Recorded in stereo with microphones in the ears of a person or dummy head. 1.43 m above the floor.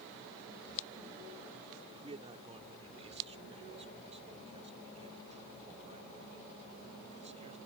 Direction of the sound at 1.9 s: 30° right (ahead or behind).